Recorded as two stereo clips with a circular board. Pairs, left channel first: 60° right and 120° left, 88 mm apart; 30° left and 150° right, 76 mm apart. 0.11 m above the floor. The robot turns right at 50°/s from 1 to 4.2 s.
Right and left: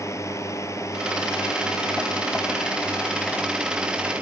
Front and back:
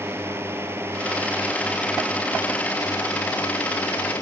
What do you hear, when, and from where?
0.0 s a drone: 100° right; by 4.2 s 60° left